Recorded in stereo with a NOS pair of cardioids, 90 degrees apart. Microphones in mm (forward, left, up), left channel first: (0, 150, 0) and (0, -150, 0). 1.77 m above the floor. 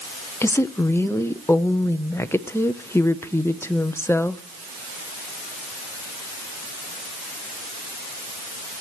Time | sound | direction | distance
0.4 | a woman speaking | 10° left | 0.8 m